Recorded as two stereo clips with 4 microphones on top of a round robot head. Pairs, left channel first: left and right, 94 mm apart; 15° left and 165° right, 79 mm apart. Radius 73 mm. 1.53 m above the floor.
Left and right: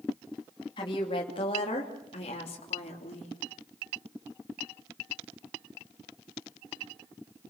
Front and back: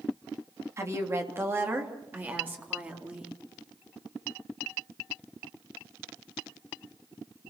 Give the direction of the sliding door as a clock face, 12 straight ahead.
No sliding door in this recording.